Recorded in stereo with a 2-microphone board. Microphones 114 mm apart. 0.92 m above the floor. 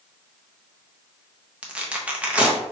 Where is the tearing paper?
10° right (ahead or behind), 0.6 m.